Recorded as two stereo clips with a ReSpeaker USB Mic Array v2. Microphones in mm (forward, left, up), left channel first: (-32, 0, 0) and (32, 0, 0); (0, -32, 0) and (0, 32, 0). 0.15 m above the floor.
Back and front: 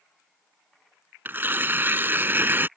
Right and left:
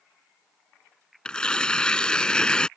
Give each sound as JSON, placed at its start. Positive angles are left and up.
{"t": 1.2, "sound": "tearing paper", "azimuth_deg": -25}